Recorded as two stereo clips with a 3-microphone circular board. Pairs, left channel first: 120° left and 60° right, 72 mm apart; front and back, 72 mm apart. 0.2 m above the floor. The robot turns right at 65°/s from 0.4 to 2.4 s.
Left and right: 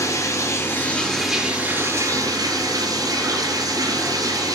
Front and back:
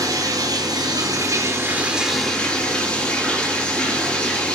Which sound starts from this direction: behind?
Running water, at 0.0 s.